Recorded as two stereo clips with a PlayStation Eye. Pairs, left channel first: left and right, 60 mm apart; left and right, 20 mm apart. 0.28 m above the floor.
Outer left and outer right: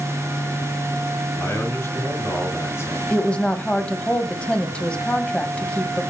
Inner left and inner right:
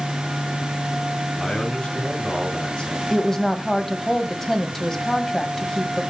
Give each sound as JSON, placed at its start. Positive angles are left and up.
{"t": 1.3, "sound": "a man speaking", "side_deg": 45, "distance_m": 3.0}
{"t": 3.1, "sound": "a woman speaking", "side_deg": 20, "distance_m": 1.5}